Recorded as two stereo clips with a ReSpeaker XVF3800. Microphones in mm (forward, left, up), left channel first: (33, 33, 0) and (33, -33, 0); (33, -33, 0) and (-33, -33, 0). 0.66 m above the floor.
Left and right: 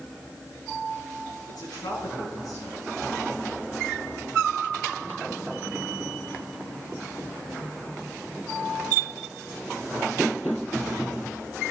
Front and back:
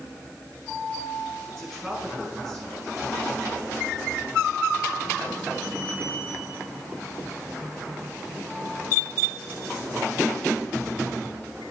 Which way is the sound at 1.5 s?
80° left.